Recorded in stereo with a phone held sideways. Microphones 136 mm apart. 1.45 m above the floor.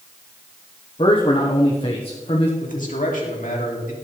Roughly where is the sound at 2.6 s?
Left.